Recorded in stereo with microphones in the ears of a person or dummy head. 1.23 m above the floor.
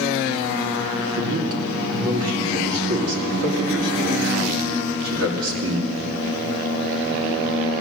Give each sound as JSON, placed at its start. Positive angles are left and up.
{"t": 1.1, "sound": "a man speaking", "side_deg": -75, "distance_m": 2.5}